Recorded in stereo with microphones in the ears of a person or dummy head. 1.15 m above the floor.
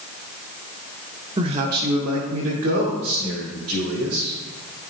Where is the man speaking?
25° right (ahead or behind), 0.6 m; by 4.3 s 75° right (ahead or behind), 2.5 m.